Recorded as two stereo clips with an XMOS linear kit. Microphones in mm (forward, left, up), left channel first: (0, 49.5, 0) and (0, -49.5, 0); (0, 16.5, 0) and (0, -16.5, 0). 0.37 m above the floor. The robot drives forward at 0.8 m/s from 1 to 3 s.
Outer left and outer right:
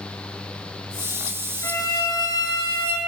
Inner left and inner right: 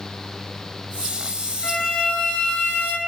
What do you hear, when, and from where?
1.6 s a violin: 30° left (ahead or behind), 1.9 m; by 3.0 s 55° left (ahead or behind), 1.1 m